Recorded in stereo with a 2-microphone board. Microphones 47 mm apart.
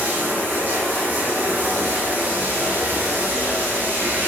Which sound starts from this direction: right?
Running water, at 0.0 s.